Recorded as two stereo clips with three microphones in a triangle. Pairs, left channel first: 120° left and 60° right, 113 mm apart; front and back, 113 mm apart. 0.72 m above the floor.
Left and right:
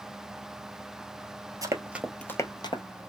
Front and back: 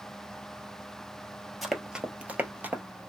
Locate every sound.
1.6 s running footsteps: 90° right, 0.8 m; by 2.8 s 110° left, 1.0 m